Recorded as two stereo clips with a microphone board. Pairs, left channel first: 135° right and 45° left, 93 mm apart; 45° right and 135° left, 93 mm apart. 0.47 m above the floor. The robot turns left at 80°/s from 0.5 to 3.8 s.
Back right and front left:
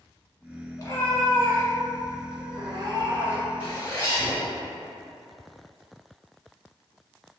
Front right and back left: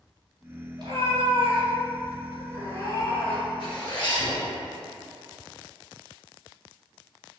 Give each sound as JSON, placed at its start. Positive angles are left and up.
{"t": 0.8, "sound": "a cat meowing", "azimuth_deg": 170, "distance_m": 1.6}
{"t": 3.6, "sound": "a zipper", "azimuth_deg": -65, "distance_m": 1.7}